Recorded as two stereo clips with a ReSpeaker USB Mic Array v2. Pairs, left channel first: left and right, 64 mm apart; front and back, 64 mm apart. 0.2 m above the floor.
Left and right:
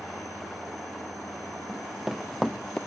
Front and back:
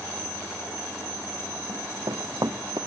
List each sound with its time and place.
1.7 s running footsteps: 175° right, 2 m; by 2.8 s 170° left, 1.0 m